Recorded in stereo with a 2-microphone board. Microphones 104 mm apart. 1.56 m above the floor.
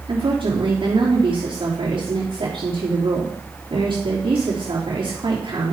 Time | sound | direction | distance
0.1 | a woman speaking | 50° right (ahead or behind) | 3 m